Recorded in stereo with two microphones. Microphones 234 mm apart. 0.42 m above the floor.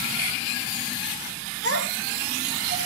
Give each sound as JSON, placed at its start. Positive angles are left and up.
{"t": 1.6, "sound": "a child speaking", "side_deg": 70, "distance_m": 5.5}